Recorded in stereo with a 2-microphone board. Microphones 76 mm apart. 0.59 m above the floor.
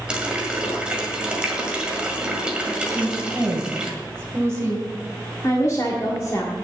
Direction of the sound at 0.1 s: 10° right (ahead or behind).